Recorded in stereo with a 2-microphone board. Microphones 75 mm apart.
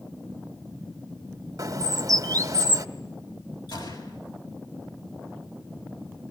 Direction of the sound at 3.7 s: 80° left.